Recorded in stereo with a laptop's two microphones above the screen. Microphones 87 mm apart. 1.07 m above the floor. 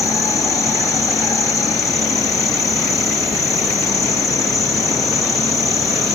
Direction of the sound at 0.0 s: 40° left (ahead or behind).